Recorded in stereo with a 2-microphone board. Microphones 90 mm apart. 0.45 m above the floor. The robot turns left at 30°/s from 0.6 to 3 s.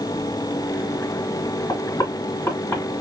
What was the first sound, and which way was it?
Knocking, 50° left (ahead or behind).